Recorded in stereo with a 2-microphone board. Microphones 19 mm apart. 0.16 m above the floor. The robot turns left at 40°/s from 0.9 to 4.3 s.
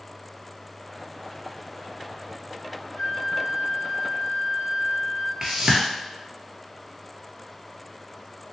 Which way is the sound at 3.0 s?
30° right.